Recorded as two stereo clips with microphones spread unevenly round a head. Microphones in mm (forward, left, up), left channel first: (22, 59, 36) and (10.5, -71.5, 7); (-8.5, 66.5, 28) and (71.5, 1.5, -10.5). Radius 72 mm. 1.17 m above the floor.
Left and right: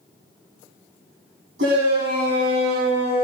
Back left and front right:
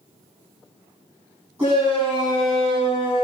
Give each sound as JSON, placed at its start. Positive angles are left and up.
{"t": 1.6, "sound": "a shout", "azimuth_deg": -115, "distance_m": 9.5}